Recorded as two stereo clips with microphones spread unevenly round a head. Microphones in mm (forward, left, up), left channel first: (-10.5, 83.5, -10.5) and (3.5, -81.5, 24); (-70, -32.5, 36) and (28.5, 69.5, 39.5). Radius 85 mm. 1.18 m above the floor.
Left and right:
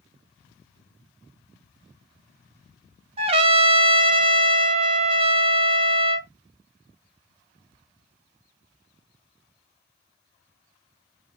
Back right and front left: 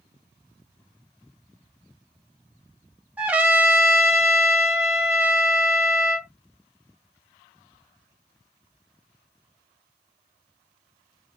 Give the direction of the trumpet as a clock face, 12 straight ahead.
1 o'clock.